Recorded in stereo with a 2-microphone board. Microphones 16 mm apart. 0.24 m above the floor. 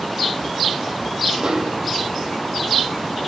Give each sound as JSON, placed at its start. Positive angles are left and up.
{"t": 1.4, "sound": "a snare drum", "side_deg": -50, "distance_m": 3.5}